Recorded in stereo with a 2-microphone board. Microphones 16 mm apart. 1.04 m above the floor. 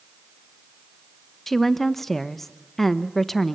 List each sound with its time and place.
1.5 s a woman speaking: 15° left (ahead or behind), 0.9 m